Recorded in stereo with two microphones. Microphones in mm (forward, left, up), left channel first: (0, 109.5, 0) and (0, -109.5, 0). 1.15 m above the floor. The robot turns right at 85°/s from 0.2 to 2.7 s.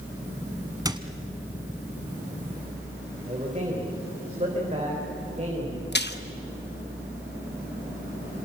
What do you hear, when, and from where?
0.8 s a squeak: 15° right (ahead or behind), 1.2 m; by 1.0 s 25° right (ahead or behind), 1.2 m
3.3 s a man speaking: 30° right (ahead or behind), 4 m
5.9 s a splash: 50° left (ahead or behind), 1.1 m